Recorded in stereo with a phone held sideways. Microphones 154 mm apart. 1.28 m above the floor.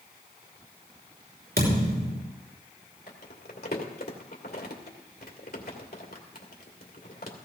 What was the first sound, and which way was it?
A thud, 80° right.